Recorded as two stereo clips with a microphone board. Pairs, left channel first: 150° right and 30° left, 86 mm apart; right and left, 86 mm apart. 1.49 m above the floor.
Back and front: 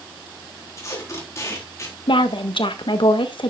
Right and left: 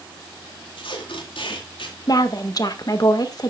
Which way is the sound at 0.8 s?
95° right.